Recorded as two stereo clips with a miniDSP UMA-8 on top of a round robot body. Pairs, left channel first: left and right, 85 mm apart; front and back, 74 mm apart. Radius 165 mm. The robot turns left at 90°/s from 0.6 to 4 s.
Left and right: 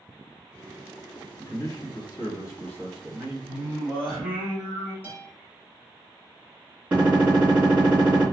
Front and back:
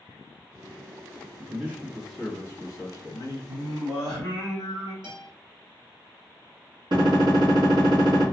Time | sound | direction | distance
1.4 | a man speaking | 145° left | 1.4 m
3.5 | singing | 135° right | 0.7 m
5.0 | a guitar | 160° right | 1.9 m
6.9 | a gunshot | 165° right | 1.4 m